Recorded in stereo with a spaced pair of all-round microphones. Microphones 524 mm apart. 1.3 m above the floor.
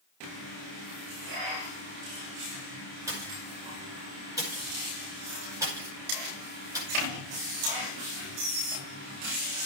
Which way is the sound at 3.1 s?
5° right (ahead or behind).